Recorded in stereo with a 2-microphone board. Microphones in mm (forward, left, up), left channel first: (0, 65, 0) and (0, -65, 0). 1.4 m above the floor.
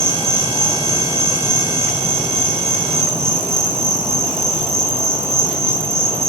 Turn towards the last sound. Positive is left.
turn(degrees=-25)  # may be behind; listen again after turning